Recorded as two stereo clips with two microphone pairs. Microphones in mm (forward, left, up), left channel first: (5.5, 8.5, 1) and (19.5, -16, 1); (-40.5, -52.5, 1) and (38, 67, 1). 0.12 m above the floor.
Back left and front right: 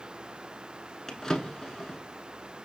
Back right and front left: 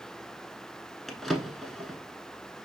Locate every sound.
1.1 s a drawer: 150° left, 0.7 m